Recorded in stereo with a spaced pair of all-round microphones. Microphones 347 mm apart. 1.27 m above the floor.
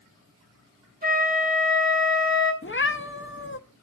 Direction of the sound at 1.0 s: 25° right (ahead or behind).